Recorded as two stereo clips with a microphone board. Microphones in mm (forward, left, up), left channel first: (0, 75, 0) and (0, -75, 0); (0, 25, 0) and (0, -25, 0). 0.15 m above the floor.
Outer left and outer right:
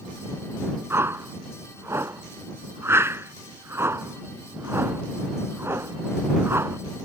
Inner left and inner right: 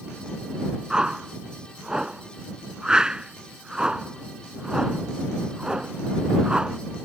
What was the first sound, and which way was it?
A whoosh, 15° right (ahead or behind).